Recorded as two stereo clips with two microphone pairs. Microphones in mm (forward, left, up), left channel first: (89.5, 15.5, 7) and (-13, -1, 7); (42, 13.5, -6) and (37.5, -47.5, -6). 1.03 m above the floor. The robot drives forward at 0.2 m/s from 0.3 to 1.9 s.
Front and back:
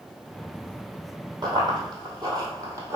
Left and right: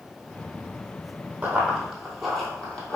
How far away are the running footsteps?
About 1.4 m.